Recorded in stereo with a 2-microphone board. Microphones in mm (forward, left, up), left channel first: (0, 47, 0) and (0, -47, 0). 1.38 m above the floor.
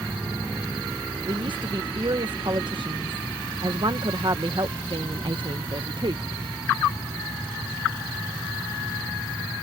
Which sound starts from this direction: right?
A woman speaking, at 1.3 s.